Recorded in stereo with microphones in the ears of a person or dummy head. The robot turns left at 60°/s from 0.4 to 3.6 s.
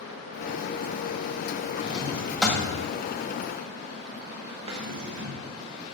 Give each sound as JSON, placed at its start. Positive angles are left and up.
{"t": 1.8, "sound": "a drawer", "side_deg": 20, "distance_m": 1.6}
{"t": 4.7, "sound": "a drawer", "side_deg": -25, "distance_m": 1.7}